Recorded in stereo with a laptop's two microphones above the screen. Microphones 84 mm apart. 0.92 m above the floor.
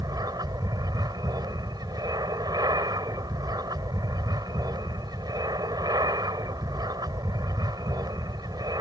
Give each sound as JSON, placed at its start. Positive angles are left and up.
{"t": 0.0, "sound": "an aircraft", "side_deg": -55}